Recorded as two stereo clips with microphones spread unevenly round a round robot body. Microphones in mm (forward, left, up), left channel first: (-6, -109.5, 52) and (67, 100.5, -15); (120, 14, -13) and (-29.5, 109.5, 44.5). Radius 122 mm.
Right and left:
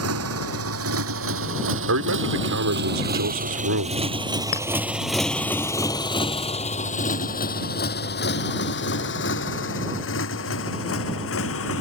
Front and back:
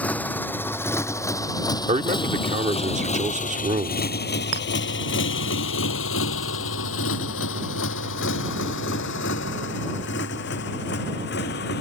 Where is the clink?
Straight behind.